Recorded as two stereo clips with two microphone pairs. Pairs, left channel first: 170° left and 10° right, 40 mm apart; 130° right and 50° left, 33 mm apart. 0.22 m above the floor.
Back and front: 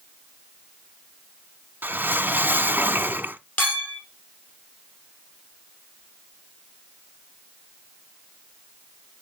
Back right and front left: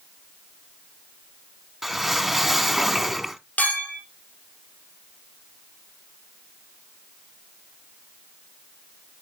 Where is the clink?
155° right, 3.5 m.